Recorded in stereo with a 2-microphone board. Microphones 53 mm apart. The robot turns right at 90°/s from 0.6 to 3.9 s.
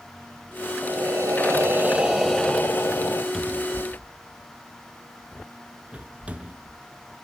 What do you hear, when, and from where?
0.8 s breathing: 130° right, 1.0 m; by 3.2 s 90° left, 1.0 m
3.3 s a cupboard door: 5° left (ahead or behind), 0.8 m; by 6.8 s 25° right (ahead or behind), 0.8 m